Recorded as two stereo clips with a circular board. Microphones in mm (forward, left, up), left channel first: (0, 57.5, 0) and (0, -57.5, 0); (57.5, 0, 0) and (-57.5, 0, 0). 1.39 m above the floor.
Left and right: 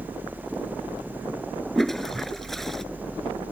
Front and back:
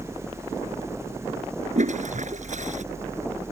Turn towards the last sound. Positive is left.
turn(degrees=180)